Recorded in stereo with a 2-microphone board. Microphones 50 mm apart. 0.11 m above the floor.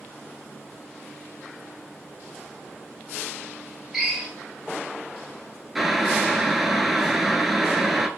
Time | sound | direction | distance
3.9 | a drill | 5° right (ahead or behind) | 2 m
5.8 | boiling | 5° right (ahead or behind) | 0.6 m